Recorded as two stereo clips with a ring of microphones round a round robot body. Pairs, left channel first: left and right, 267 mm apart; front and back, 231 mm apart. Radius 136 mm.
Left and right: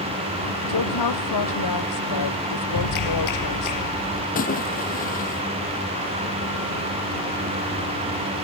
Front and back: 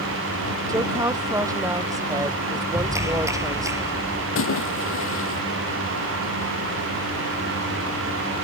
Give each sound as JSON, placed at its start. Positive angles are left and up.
{"t": 0.7, "sound": "a woman speaking", "azimuth_deg": 105}
{"t": 2.7, "sound": "a clap", "azimuth_deg": 100}
{"t": 4.3, "sound": "a splash", "azimuth_deg": 30}